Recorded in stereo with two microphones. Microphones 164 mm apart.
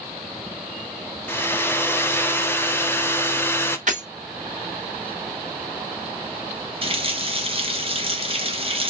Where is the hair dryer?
15° left (ahead or behind), 0.7 m.